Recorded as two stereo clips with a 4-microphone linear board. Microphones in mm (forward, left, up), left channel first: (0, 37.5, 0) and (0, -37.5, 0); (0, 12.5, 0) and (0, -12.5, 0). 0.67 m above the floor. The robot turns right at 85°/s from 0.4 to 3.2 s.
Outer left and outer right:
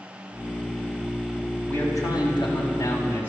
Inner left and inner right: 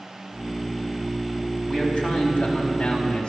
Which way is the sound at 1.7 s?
20° left.